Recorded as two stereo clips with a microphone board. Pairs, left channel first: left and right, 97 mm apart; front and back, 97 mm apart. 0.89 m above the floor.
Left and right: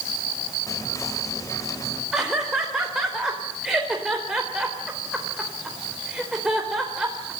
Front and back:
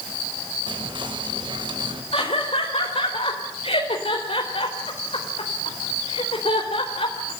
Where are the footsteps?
No footsteps in this recording.